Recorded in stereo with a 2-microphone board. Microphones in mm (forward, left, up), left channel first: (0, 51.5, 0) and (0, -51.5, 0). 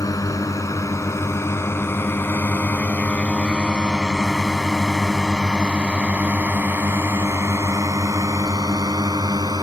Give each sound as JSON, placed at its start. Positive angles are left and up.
{"t": 0.0, "sound": "a drone", "side_deg": 35}